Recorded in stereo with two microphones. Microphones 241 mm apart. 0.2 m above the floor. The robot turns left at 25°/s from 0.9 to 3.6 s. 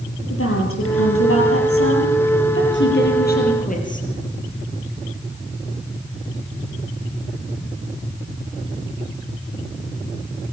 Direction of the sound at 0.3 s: 105° left.